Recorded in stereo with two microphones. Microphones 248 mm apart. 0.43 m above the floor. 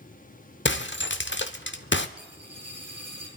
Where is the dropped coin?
80° right, 6 m.